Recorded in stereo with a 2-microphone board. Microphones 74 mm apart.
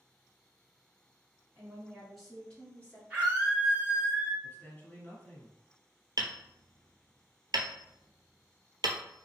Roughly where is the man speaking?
Left.